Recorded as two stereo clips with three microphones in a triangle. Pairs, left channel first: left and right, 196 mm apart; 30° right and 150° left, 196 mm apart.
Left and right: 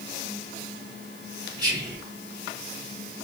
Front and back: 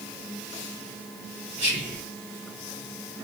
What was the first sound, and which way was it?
Whispering, 35° right.